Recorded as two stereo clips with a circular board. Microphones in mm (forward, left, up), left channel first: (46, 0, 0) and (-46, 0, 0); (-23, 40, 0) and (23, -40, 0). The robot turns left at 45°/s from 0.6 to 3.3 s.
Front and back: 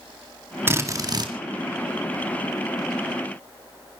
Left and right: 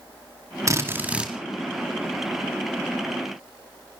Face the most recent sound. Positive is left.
turn(degrees=125)